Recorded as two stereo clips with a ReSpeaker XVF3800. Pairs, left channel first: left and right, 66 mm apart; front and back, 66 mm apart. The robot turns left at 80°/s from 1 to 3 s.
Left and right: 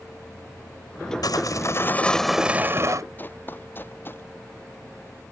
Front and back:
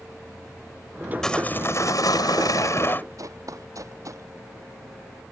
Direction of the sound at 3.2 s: 150° left.